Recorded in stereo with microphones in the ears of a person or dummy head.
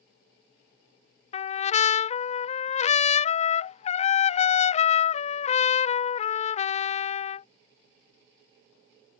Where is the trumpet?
35° left (ahead or behind).